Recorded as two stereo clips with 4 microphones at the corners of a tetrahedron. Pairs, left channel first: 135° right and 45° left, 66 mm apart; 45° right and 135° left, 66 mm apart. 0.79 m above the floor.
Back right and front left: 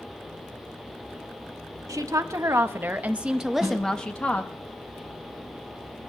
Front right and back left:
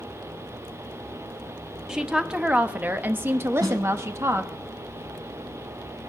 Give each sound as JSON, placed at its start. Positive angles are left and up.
{"t": 1.9, "sound": "a woman speaking", "azimuth_deg": 55, "distance_m": 1.2}
{"t": 3.6, "sound": "a snare drum", "azimuth_deg": 125, "distance_m": 4.5}